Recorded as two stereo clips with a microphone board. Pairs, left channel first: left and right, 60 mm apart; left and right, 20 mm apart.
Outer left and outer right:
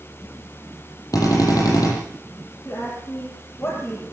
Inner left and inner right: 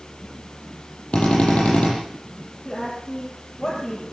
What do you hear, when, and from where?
1.1 s a drill: 75° left (ahead or behind), 8.5 m
2.6 s a woman speaking: 40° left (ahead or behind), 7 m